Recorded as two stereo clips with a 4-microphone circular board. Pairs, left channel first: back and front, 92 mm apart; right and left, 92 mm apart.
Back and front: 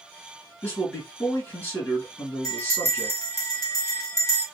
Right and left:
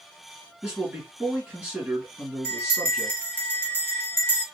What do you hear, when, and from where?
0.6 s a man speaking: 155° left, 1.6 m
2.4 s a bell: 145° right, 2.0 m